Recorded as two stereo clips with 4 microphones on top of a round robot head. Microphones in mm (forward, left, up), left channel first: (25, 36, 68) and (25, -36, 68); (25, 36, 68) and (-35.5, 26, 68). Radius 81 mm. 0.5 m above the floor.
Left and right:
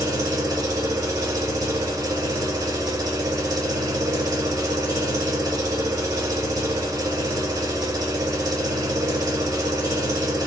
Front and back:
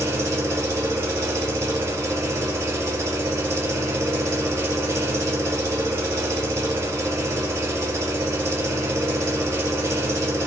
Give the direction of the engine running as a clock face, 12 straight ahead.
4 o'clock.